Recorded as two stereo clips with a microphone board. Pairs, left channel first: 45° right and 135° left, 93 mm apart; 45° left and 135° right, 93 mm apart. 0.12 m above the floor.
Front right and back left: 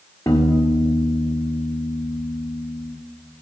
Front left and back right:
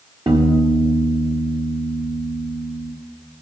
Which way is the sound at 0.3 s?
105° right.